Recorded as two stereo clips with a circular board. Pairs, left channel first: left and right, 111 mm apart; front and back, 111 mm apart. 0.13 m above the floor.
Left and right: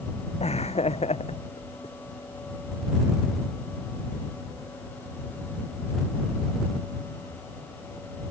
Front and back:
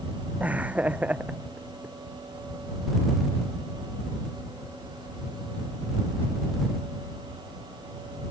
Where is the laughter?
105° left.